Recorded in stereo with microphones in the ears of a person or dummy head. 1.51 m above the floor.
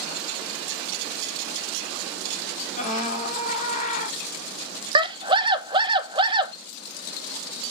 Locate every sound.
2.8 s a scream: 45° left (ahead or behind), 3.5 m
5.0 s a scream: 30° right (ahead or behind), 1.1 m